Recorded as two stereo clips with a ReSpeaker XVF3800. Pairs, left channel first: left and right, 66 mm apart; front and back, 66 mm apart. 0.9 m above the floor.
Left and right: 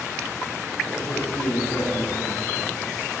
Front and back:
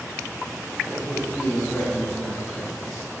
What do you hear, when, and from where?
0.8 s a man speaking: 70° left, 6 m